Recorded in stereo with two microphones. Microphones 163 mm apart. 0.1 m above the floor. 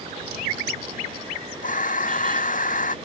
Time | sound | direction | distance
1.6 | breathing | 55° left (ahead or behind) | ?